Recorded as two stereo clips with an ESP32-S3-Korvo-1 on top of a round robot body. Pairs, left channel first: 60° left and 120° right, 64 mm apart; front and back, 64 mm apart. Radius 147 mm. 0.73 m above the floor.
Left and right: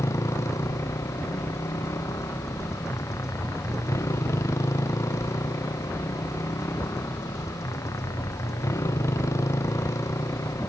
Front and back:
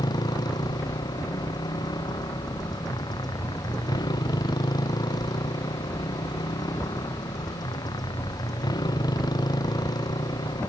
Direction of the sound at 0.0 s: 15° left.